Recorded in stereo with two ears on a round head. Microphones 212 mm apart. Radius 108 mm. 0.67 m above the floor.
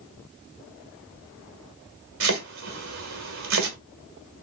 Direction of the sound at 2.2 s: 70° right (ahead or behind).